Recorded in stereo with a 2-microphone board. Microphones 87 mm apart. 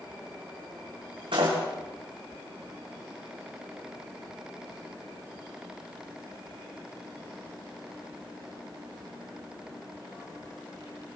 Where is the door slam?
75° right (ahead or behind), 7.5 m.